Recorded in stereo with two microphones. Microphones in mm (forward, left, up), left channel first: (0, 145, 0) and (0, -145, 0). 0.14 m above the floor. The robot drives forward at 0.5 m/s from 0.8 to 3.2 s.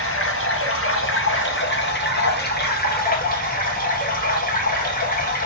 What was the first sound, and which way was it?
Running water, 50° left (ahead or behind).